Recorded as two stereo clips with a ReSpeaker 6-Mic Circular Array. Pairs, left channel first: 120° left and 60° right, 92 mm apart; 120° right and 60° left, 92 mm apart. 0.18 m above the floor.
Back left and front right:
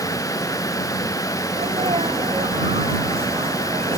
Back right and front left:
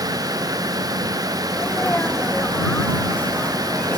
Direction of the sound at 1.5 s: 45° right.